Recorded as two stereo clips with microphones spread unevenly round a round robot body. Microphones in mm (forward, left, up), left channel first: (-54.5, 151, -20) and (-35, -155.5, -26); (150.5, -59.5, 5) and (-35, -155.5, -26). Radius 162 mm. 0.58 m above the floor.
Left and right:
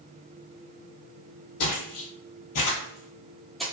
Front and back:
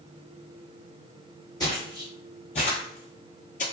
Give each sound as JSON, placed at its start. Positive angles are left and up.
{"t": 1.6, "sound": "footsteps", "azimuth_deg": 95, "distance_m": 1.2}